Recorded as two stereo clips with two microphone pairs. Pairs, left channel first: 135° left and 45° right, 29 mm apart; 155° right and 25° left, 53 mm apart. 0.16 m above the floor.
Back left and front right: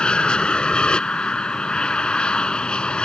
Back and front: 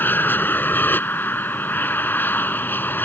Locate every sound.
0.0 s an aircraft: 170° left